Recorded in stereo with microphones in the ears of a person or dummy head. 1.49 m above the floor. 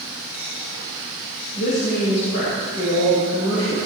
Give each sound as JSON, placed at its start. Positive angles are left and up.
{"t": 1.6, "sound": "a woman speaking", "side_deg": 60, "distance_m": 7.0}